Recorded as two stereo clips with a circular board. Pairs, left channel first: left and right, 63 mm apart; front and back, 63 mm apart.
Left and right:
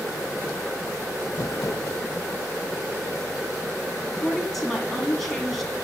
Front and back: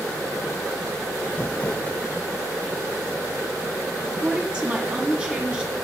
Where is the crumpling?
65° left, 0.7 m.